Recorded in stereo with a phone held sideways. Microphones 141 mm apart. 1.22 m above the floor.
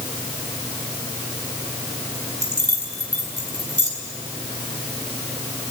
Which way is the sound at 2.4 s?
25° right (ahead or behind).